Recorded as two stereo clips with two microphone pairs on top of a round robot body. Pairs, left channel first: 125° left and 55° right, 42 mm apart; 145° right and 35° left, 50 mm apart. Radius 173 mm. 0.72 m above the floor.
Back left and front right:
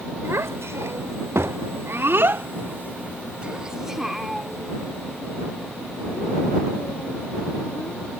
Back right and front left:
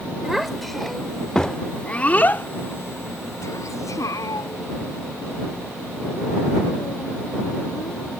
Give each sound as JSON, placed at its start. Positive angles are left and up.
{"t": 0.2, "sound": "a child speaking", "azimuth_deg": -50}